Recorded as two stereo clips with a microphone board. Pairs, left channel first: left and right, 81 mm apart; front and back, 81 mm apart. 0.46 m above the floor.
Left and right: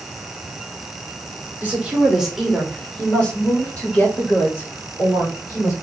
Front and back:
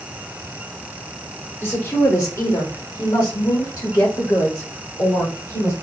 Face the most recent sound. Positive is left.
turn(degrees=40)